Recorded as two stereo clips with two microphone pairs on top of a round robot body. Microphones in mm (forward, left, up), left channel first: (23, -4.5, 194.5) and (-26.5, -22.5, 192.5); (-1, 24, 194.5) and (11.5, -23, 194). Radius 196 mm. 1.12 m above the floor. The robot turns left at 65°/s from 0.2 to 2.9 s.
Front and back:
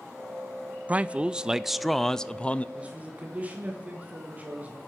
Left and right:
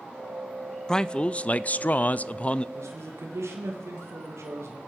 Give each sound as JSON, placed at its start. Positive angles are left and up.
{"t": 0.9, "sound": "a man speaking", "azimuth_deg": 175, "distance_m": 0.6}
{"t": 2.8, "sound": "a man speaking", "azimuth_deg": -90, "distance_m": 1.6}